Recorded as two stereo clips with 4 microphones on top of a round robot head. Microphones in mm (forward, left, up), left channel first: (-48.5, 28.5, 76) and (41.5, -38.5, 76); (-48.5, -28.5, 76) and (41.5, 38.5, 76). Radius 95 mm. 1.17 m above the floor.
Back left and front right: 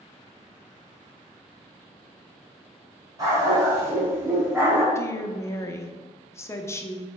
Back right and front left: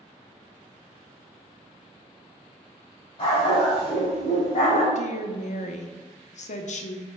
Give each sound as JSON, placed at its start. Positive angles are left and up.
{"t": 3.2, "sound": "a dog barking", "azimuth_deg": -95, "distance_m": 3.0}
{"t": 5.0, "sound": "a woman speaking", "azimuth_deg": -150, "distance_m": 0.9}